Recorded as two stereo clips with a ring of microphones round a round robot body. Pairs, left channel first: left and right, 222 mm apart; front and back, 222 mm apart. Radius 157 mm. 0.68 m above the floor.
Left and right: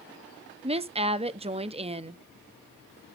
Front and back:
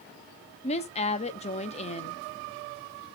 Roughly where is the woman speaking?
Ahead right.